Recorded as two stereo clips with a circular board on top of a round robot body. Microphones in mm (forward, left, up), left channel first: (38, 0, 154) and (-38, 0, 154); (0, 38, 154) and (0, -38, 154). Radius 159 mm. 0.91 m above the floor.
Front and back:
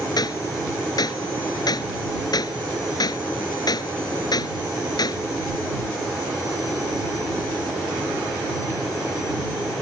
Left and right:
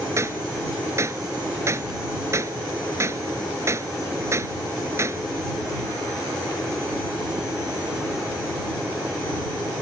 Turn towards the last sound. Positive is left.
turn(degrees=-35)